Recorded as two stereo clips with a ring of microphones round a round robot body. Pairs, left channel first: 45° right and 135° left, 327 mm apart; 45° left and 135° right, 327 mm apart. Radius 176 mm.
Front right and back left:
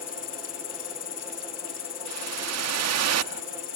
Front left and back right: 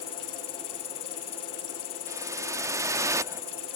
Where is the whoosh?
145° left.